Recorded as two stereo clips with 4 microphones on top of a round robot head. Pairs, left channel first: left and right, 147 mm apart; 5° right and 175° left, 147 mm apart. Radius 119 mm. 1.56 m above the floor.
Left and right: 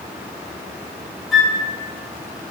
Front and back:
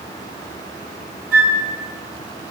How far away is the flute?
About 1.9 m.